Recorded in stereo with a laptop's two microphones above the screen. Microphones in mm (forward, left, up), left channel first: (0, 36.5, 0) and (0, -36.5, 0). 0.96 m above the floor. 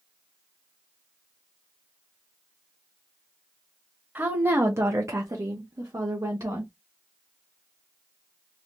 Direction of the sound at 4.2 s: 25° right (ahead or behind).